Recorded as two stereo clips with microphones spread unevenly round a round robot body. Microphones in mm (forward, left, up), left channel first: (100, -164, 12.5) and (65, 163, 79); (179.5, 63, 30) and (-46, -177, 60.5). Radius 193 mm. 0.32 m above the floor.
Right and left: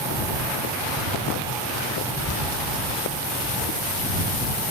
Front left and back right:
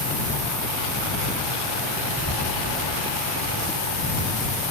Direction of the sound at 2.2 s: 115° right.